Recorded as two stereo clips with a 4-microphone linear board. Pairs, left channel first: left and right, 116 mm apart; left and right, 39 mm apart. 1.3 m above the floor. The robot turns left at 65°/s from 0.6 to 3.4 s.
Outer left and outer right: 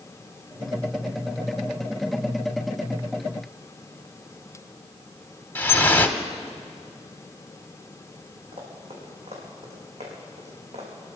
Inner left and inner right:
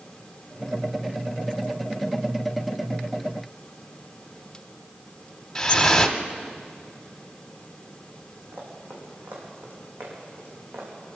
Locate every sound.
5.5 s dripping: 15° left (ahead or behind), 1.0 m
8.5 s running footsteps: 55° right (ahead or behind), 4.5 m; by 10.9 s 70° right (ahead or behind), 5 m